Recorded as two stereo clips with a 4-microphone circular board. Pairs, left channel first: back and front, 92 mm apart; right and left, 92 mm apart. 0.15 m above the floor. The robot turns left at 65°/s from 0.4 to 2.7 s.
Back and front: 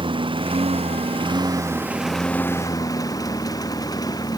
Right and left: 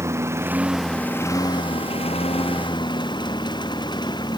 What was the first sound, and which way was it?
A lawn mower, 30° left.